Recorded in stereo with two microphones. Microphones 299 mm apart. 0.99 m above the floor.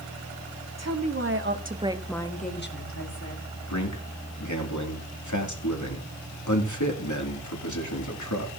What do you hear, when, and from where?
0.8 s a woman speaking: 60° right (ahead or behind), 2 m; by 3.5 s 60° left (ahead or behind), 2.5 m
3.7 s a man speaking: 75° left (ahead or behind), 2.5 m